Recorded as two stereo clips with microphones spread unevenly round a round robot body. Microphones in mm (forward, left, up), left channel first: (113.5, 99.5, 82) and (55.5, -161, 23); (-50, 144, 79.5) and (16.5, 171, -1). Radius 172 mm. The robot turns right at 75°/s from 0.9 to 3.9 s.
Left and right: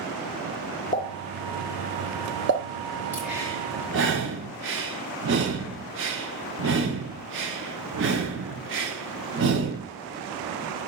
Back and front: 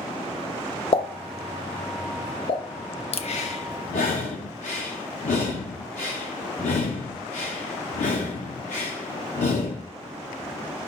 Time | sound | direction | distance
0.9 | a pop | 145° left | 0.7 m
3.1 | breathing | 165° left | 0.6 m